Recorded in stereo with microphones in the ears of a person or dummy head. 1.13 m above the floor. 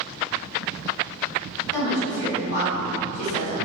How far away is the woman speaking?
About 1.8 m.